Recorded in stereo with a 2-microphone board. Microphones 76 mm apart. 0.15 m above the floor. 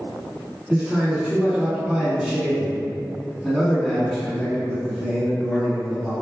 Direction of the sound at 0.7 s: 15° right (ahead or behind).